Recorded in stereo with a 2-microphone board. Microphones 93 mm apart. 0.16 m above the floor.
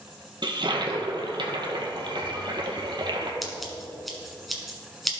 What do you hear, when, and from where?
0.4 s a toilet flushing: 55° right (ahead or behind), 1.4 m
3.4 s scissors: centre (ahead or behind), 1.5 m